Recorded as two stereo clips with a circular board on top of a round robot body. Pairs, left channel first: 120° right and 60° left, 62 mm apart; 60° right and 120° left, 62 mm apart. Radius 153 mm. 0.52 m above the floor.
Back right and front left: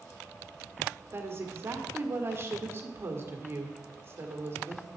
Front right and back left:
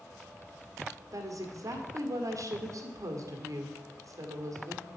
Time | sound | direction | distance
1.1 | a woman speaking | 105° left | 1.9 m